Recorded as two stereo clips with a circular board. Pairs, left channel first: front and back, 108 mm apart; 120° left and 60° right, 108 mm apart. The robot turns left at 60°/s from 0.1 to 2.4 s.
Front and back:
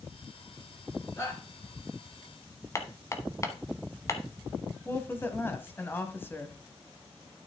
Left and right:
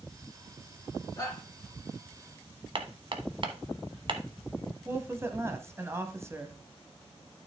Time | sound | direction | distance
1.2 | a shout | 65° left | 3 m
2.8 | hammering | 55° right | 0.9 m
4.8 | a woman speaking | 40° right | 1.0 m